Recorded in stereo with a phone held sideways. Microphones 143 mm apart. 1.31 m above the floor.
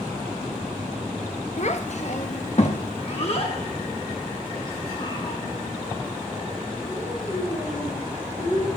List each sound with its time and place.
1.6 s a child speaking: 50° left (ahead or behind), 0.8 m; by 8.8 s 30° left (ahead or behind), 4.5 m